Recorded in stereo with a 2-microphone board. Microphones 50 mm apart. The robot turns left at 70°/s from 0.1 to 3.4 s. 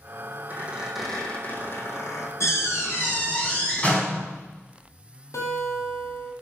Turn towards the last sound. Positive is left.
turn(degrees=80)